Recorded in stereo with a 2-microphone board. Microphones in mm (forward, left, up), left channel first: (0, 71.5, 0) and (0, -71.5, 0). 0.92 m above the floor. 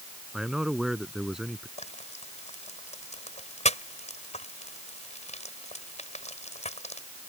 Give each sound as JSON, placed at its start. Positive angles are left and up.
{"t": 0.3, "sound": "a man speaking", "side_deg": -5}
{"t": 1.8, "sound": "frying", "side_deg": 50}